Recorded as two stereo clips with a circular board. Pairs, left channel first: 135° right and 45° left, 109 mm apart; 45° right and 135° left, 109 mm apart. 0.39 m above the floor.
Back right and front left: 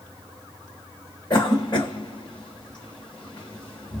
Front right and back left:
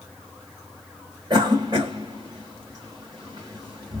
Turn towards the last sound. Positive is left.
turn(degrees=-175)